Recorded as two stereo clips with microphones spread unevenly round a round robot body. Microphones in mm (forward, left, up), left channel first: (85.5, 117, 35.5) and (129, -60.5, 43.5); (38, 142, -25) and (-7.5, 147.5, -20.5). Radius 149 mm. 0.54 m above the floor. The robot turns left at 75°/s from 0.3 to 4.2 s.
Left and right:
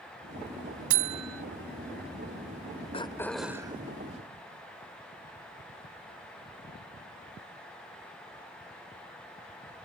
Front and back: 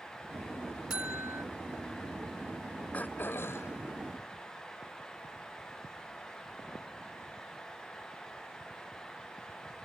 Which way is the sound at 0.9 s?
105° right.